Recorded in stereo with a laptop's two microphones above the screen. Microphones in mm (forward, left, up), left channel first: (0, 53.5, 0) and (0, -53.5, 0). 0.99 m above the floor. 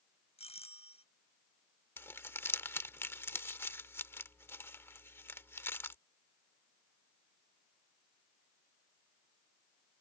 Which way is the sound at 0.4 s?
70° left (ahead or behind).